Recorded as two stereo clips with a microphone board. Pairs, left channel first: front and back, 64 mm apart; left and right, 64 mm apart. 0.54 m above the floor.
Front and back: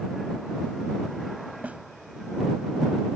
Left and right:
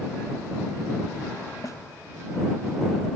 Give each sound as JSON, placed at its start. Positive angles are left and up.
{"t": 1.6, "sound": "a snare drum", "azimuth_deg": 115}